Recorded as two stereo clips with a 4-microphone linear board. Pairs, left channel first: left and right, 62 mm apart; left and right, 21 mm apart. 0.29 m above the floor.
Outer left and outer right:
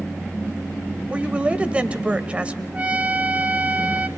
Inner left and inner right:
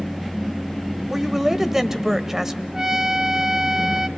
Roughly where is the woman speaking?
Right.